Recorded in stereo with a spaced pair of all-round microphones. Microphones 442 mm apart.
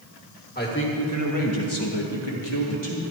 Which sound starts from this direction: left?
A man speaking, at 0.6 s.